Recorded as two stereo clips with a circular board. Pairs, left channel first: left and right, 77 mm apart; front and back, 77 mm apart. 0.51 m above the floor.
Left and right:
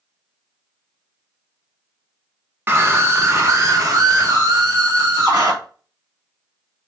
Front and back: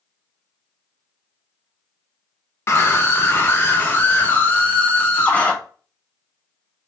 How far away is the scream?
About 1.3 m.